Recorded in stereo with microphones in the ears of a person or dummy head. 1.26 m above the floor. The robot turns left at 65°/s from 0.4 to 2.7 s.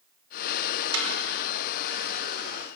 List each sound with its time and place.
0.9 s a snare drum: 85° right, 5.5 m; by 1.1 s 75° right (ahead or behind), 5.5 m